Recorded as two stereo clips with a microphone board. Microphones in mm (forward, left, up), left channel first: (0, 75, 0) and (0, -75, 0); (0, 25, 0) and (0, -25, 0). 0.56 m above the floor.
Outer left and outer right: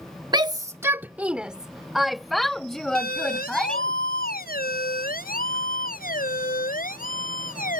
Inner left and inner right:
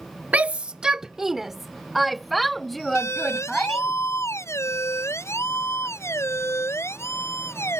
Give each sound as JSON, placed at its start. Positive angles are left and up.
{"t": 0.3, "sound": "a shout", "side_deg": -30}
{"t": 3.0, "sound": "a siren", "side_deg": 80}